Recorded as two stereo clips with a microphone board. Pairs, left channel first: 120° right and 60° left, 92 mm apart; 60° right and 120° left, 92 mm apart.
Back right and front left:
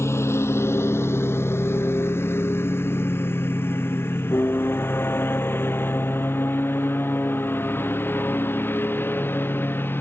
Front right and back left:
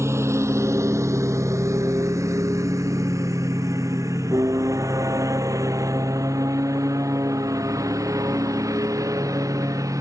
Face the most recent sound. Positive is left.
turn(degrees=170)